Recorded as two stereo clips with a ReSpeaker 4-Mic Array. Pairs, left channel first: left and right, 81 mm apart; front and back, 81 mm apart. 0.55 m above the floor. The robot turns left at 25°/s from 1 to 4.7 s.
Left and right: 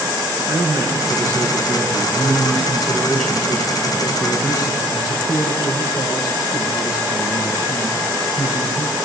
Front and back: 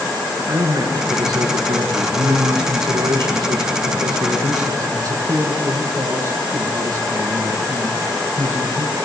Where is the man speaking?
135° right, 6.5 m; by 9.0 s 135° left, 6.5 m.